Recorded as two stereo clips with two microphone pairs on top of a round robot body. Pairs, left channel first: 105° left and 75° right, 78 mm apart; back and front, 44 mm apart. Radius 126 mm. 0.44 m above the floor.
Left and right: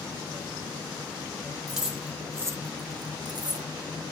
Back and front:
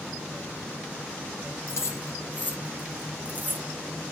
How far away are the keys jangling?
About 1.1 m.